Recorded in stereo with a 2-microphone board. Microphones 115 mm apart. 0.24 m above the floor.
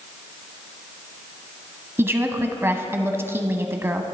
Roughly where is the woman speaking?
Right.